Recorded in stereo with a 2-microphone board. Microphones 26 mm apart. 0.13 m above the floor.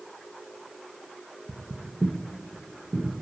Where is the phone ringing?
No phone ringing in this recording.